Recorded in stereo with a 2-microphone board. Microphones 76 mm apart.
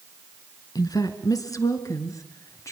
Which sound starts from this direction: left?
A woman speaking, at 0.8 s.